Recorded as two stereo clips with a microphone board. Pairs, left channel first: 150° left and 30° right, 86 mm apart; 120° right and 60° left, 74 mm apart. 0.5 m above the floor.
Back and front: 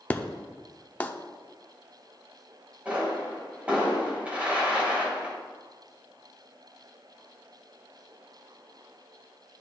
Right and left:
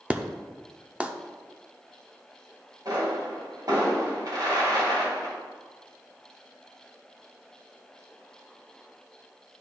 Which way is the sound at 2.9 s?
45° left.